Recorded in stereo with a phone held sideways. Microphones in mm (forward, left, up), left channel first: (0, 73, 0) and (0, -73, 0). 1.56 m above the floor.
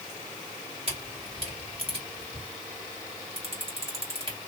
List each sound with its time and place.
0.9 s a camera shutter: 40° right (ahead or behind), 1.8 m